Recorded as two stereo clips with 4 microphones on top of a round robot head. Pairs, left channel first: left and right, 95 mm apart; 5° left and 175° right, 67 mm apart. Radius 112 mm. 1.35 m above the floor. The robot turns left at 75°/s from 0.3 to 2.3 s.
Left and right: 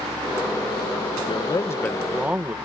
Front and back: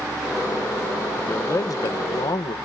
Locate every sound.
1.2 s a man speaking: 70° left; by 2.5 s 15° right